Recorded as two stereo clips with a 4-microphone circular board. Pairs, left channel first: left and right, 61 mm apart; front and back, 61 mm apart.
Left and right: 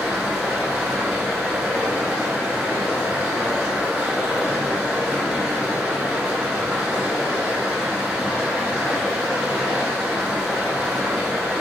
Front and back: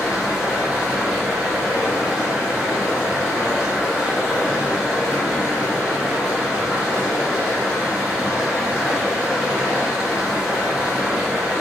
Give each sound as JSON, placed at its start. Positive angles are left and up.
{"t": 0.0, "sound": "running water", "azimuth_deg": -125, "distance_m": 1.1}